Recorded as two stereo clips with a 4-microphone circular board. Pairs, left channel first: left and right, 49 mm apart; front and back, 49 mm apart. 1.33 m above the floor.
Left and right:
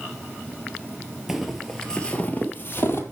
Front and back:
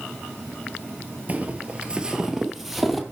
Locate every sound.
1.3 s footsteps: 165° right, 1.5 m; by 3.0 s 85° left, 1.9 m